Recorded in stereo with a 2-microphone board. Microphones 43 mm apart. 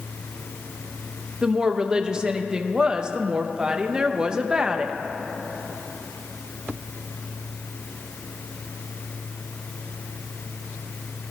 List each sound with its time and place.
1.4 s a woman speaking: 20° right (ahead or behind), 0.7 m